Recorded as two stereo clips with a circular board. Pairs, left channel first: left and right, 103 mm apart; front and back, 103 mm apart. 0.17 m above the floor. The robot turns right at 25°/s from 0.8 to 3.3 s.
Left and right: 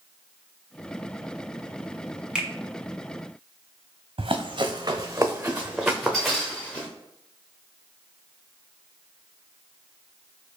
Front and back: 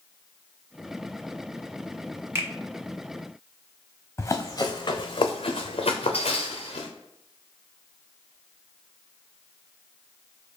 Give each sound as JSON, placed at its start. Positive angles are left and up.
{"t": 2.4, "sound": "a finger snap", "azimuth_deg": -160, "distance_m": 1.0}
{"t": 4.2, "sound": "running footsteps", "azimuth_deg": -65, "distance_m": 0.8}